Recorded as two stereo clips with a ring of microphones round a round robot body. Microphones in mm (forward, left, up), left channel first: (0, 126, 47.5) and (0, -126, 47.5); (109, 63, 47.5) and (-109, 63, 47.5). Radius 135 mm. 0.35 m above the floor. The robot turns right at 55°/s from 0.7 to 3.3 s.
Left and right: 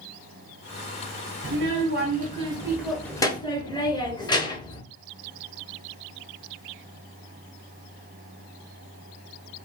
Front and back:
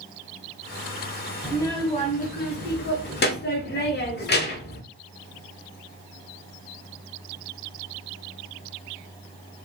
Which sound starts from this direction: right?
A child speaking, at 1.4 s.